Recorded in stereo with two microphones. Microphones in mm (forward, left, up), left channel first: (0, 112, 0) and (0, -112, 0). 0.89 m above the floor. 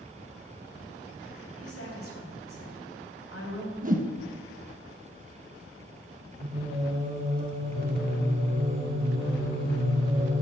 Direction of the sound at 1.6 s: 85° left.